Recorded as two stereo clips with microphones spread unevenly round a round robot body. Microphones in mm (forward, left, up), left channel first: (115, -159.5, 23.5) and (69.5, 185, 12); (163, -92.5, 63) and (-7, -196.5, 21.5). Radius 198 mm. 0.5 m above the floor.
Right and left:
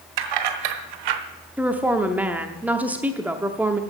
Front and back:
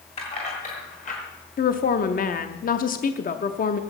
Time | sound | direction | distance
0.2 | keys jangling | 105° left | 1.7 m
1.6 | a woman speaking | 20° left | 0.7 m